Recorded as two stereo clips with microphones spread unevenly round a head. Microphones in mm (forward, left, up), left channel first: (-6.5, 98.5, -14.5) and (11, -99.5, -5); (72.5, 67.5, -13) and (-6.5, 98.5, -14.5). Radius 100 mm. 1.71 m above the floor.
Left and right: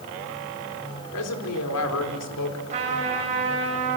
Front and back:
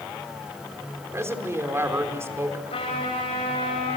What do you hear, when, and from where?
1.1 s a woman speaking: 100° left, 4.5 m
2.7 s a trumpet: 30° right, 10 m